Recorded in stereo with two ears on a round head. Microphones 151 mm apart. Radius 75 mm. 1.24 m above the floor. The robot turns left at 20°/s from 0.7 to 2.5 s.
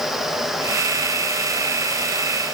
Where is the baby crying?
No baby crying in this recording.